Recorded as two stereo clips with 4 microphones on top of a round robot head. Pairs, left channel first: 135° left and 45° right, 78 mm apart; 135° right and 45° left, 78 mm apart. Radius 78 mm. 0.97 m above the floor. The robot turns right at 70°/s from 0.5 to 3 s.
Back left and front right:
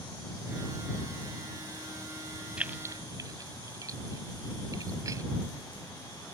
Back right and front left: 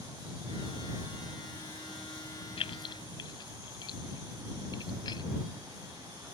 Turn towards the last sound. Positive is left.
turn(degrees=-95)